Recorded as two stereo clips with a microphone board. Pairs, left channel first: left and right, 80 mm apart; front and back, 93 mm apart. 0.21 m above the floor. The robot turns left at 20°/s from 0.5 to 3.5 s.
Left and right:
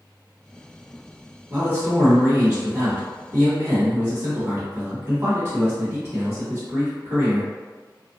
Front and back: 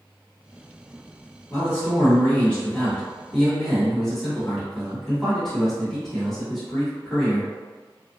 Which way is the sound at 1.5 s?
40° right.